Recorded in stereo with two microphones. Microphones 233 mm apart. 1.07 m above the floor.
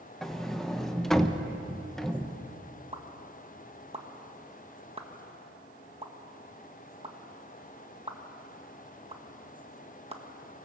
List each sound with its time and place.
0.2 s a sliding door: centre (ahead or behind), 1.0 m
2.9 s a pop: 25° right (ahead or behind), 1.4 m